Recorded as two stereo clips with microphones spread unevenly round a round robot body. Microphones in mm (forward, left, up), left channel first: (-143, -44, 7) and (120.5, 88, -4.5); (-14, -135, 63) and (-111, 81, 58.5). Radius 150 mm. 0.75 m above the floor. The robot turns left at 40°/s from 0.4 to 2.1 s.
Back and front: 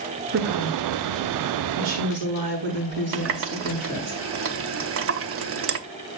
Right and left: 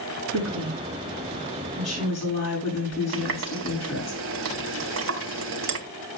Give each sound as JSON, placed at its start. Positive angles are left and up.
{"t": 0.3, "sound": "a woman speaking", "azimuth_deg": 80, "distance_m": 7.5}
{"t": 3.1, "sound": "a running tap", "azimuth_deg": 75, "distance_m": 0.8}